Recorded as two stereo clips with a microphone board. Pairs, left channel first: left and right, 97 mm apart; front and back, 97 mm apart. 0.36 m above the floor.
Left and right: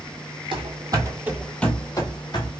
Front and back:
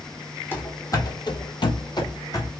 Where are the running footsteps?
65° right, 0.9 m; by 2.5 s 50° left, 1.0 m.